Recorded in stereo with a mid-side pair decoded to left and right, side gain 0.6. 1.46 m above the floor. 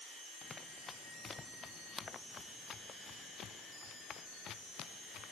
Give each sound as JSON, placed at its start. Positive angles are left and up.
{"t": 0.4, "sound": "running footsteps", "azimuth_deg": 25}